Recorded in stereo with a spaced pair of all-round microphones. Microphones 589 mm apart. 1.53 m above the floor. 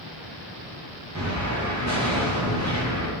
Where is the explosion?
30° right (ahead or behind), 0.9 m.